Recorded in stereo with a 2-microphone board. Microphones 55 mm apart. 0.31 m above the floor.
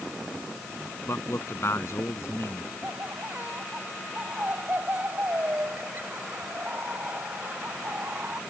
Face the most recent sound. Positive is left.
turn(degrees=-35)  # may be behind; listen again after turning